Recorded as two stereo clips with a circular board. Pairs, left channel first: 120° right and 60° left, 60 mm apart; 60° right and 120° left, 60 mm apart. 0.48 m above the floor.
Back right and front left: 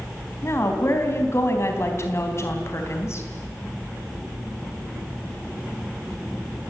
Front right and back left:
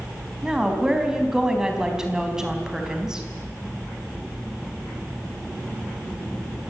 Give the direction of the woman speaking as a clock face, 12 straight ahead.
5 o'clock.